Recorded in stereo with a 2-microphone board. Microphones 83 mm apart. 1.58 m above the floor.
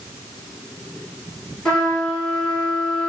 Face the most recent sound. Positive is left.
turn(degrees=10)  # may be behind; listen again after turning